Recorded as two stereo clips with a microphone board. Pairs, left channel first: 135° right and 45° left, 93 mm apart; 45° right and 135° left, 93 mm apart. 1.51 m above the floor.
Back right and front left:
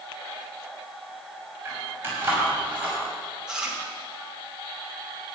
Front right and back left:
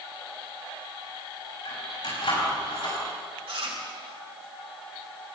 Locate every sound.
1.6 s keys jangling: 20° right, 6 m; by 3.0 s 30° right, 5.5 m
3.5 s chewing: 125° left, 2.5 m